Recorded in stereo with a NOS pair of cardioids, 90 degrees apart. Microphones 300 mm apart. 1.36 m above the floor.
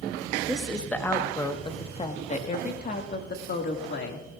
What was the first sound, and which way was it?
A woman speaking, 5° right.